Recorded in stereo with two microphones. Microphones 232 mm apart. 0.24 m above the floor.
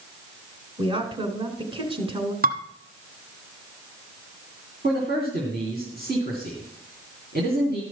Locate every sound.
0.8 s a woman speaking: 20° right (ahead or behind), 2 m
2.4 s dishes clattering: 40° right (ahead or behind), 1.6 m
4.8 s a man speaking: 40° right (ahead or behind), 2.5 m